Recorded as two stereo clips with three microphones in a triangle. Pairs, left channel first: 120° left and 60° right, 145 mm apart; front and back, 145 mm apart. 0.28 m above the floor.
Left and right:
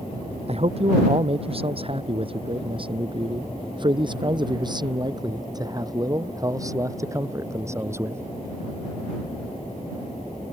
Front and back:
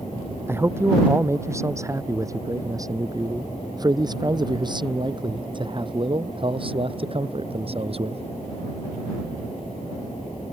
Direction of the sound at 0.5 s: 105° right.